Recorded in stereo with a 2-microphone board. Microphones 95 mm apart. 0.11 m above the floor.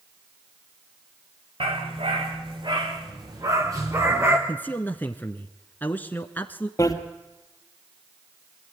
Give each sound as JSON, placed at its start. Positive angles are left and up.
{"t": 1.6, "sound": "a dog barking", "side_deg": -70, "distance_m": 4.0}
{"t": 4.5, "sound": "a man speaking", "side_deg": 20, "distance_m": 1.1}
{"t": 6.8, "sound": "a bicycle bell", "side_deg": 35, "distance_m": 2.0}